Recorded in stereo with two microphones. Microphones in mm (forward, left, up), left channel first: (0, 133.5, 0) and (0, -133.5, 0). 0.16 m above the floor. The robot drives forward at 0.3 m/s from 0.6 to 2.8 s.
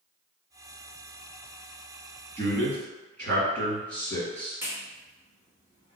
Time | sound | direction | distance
2.4 | a man speaking | 5° left (ahead or behind) | 1.8 m
4.6 | a clap | 5° right (ahead or behind) | 1.5 m